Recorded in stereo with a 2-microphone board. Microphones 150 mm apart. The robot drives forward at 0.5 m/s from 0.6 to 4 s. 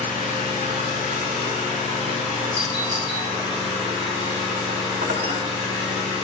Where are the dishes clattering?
70° right (ahead or behind), 1.2 m.